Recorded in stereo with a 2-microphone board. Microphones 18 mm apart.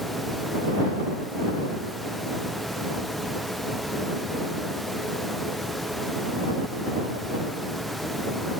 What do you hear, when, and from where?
Only background noise.